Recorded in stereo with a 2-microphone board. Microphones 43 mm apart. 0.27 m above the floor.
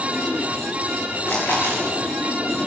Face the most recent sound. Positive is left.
turn(degrees=55)  # may be behind; listen again after turning